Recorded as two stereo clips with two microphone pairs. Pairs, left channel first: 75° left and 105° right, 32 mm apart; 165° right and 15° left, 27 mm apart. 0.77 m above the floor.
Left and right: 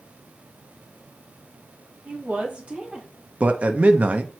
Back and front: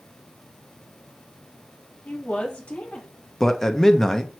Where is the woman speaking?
120° right, 1.4 m; by 3.1 s 175° right, 1.0 m.